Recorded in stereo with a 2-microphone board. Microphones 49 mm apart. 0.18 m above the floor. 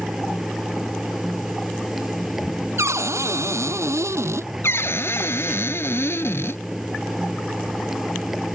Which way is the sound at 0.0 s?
10° right (ahead or behind).